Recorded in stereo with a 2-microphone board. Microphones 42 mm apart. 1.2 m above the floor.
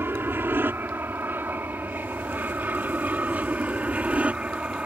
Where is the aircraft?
60° right (ahead or behind); by 4.9 s 30° right (ahead or behind).